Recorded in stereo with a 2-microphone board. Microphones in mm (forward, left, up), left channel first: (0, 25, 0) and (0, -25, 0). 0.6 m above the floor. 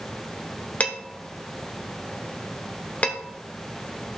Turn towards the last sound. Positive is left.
turn(degrees=30)  # may be behind; listen again after turning